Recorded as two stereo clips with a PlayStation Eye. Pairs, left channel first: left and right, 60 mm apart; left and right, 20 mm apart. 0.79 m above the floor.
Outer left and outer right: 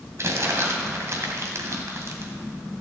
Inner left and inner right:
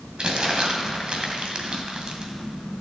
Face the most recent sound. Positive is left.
turn(degrees=-55)  # may be behind; listen again after turning